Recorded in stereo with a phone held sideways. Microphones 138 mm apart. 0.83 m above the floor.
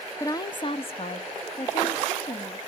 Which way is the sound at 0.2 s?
20° left (ahead or behind).